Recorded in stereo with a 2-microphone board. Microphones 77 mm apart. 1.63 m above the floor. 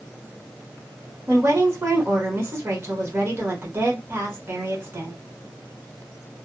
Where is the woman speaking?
35° right (ahead or behind), 1.3 m.